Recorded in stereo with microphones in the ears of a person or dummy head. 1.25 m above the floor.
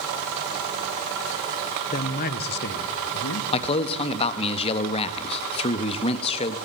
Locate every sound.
1.9 s a man speaking: 40° left (ahead or behind), 1.1 m; by 3.4 s 70° left (ahead or behind), 1.9 m
3.5 s a man speaking: 35° left (ahead or behind), 1.3 m